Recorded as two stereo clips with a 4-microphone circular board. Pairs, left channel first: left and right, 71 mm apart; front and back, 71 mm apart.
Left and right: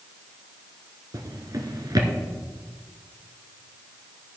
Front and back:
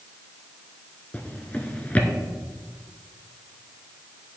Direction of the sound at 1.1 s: 70° right.